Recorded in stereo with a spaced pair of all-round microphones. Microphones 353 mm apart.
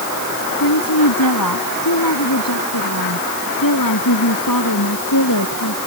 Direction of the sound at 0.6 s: 75° left (ahead or behind).